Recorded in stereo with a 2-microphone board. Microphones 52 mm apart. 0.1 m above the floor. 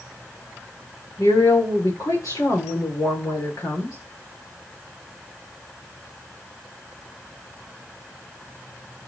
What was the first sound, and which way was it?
A woman speaking, 80° left.